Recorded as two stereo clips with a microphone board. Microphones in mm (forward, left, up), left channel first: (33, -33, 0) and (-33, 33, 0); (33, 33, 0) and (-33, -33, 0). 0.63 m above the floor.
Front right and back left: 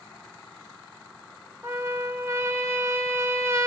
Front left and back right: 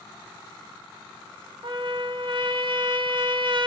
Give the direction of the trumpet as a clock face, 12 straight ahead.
5 o'clock.